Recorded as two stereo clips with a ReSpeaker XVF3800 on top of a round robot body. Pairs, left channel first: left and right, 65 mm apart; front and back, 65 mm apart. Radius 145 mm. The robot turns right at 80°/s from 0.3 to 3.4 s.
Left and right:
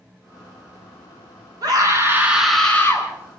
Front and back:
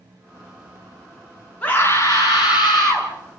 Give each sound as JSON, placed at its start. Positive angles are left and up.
{"t": 1.6, "sound": "a scream", "azimuth_deg": -70, "distance_m": 7.0}